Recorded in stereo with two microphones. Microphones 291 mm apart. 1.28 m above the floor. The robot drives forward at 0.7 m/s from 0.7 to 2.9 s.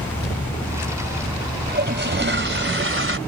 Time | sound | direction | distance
1.7 | a toilet flushing | 35° right (ahead or behind) | ?